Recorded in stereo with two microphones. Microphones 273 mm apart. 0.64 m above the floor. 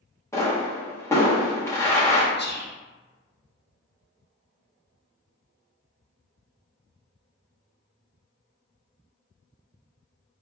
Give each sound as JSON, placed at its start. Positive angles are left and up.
{"t": 0.3, "sound": "a pop", "side_deg": 10, "distance_m": 0.9}
{"t": 2.4, "sound": "whispering", "side_deg": 35, "distance_m": 0.8}